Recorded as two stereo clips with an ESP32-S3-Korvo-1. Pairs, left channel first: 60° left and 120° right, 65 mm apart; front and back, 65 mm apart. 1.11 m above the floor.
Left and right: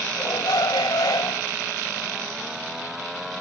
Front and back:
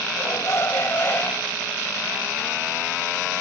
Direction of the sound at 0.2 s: 40° left.